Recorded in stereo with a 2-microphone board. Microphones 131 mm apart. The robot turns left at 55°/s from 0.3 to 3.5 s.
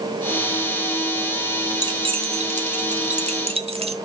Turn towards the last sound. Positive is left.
turn(degrees=-50)  # may be behind; listen again after turning